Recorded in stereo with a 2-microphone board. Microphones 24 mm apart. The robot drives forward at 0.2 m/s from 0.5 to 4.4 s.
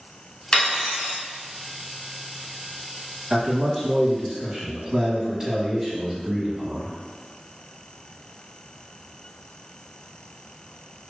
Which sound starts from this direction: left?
Cutlery clinking, at 0.5 s.